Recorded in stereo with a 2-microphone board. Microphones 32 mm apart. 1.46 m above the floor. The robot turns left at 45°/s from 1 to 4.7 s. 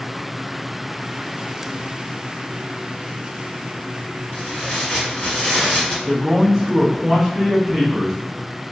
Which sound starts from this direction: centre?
A man speaking, at 6.1 s.